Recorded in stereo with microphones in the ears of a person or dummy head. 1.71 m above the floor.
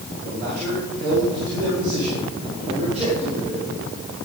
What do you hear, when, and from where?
0.2 s a man speaking: 65° right (ahead or behind), 6.5 m; by 3.7 s 30° right (ahead or behind), 5 m